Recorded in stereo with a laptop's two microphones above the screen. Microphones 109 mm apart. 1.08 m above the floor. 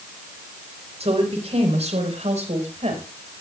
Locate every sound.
1.0 s a woman speaking: 70° right (ahead or behind), 4.5 m; by 3.0 s 85° right, 5 m